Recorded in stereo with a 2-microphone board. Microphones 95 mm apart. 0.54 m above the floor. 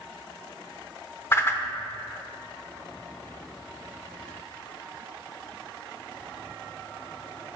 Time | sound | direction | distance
1.3 | a whoosh | 25° left (ahead or behind) | 0.9 m